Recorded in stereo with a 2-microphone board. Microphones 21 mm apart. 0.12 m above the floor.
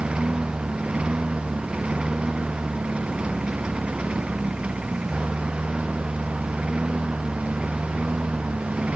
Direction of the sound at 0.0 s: 60° right (ahead or behind).